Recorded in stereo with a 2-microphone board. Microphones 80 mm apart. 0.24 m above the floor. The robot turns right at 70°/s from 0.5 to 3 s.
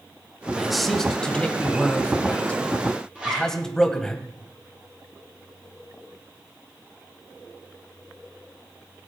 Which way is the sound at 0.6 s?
5° right (ahead or behind).